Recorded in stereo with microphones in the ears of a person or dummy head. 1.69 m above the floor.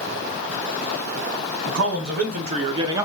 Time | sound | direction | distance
1.7 | a man speaking | 50° right (ahead or behind) | 1.2 m